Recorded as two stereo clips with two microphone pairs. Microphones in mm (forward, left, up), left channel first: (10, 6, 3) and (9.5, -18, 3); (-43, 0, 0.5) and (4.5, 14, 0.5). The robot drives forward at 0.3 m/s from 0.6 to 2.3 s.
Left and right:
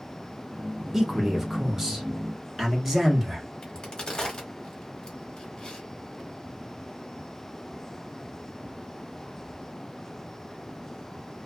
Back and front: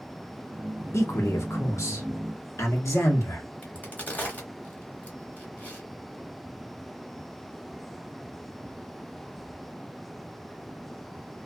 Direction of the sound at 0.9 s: 160° right.